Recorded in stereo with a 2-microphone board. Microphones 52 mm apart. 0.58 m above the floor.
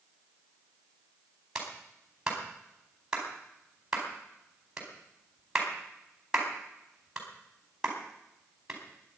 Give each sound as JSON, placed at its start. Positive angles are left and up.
{"t": 1.6, "sound": "a clap", "side_deg": -15, "distance_m": 4.5}